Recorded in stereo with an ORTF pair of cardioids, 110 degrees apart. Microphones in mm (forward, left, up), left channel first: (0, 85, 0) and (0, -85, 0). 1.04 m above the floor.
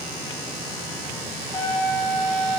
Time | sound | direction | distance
1.5 | a trumpet | 25° left | 7 m